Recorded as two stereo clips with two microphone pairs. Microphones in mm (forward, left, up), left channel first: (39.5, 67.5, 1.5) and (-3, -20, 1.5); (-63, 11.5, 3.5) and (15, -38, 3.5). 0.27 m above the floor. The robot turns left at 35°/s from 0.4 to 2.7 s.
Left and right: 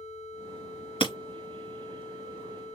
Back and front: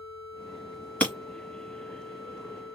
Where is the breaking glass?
75° left, 1.5 m; by 1.1 s 70° left, 1.5 m.